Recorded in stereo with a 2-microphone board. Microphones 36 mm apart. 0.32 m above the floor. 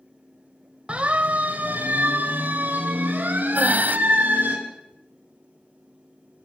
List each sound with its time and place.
0.9 s a siren: 35° right (ahead or behind), 2 m; by 4.5 s 55° right (ahead or behind), 6.5 m
3.5 s breathing: 50° right (ahead or behind), 1.4 m